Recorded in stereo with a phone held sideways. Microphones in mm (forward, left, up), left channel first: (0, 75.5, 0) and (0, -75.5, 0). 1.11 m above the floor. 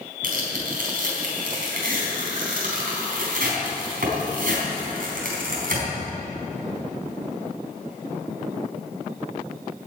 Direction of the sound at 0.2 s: 75° right (ahead or behind).